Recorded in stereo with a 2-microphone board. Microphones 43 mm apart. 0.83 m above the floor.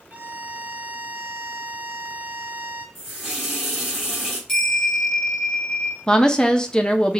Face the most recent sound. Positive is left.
turn(degrees=20)  # may be behind; listen again after turning